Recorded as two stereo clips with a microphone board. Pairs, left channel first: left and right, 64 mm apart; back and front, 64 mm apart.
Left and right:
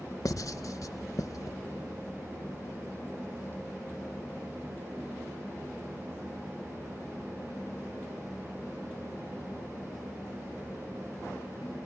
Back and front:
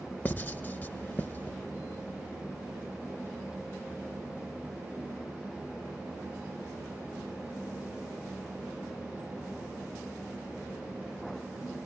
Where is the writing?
120° left, 0.5 m.